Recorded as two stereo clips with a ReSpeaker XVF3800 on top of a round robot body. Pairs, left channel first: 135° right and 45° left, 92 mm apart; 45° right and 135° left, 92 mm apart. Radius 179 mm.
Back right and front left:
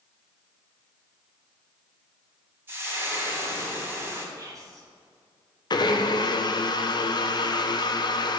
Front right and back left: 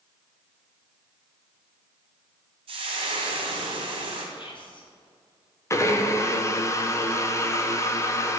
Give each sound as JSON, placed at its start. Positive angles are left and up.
{"t": 2.7, "sound": "frying", "azimuth_deg": 115, "distance_m": 1.3}
{"t": 4.3, "sound": "whispering", "azimuth_deg": -10, "distance_m": 2.5}
{"t": 5.7, "sound": "a blender", "azimuth_deg": -100, "distance_m": 1.1}